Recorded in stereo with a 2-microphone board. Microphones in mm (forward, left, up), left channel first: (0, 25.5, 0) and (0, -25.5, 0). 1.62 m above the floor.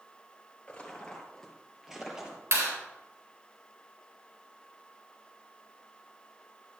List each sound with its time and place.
0.7 s footsteps: 25° left (ahead or behind), 2 m; by 2.4 s 20° right (ahead or behind), 2.5 m
2.5 s a clap: 75° right (ahead or behind), 3.5 m